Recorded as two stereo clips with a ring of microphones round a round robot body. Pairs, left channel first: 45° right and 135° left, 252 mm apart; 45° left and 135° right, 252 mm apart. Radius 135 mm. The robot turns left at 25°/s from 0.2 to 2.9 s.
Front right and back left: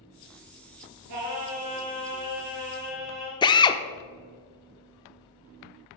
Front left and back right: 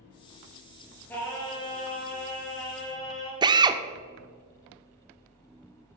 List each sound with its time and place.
1.1 s singing: 130° left, 2.5 m; by 3.3 s 80° left, 2.5 m
3.4 s a drill: 90° right, 0.6 m